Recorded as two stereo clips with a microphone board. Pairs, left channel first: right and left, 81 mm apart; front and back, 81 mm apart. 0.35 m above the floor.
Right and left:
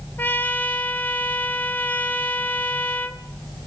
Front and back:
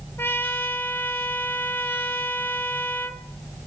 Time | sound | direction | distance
0.2 | a trumpet | 40° right | 1.3 m